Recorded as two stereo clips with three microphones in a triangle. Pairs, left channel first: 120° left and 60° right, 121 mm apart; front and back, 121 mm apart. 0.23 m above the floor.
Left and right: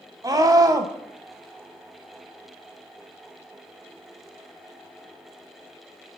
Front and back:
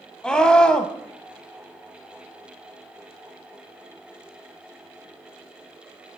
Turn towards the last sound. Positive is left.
turn(degrees=-75)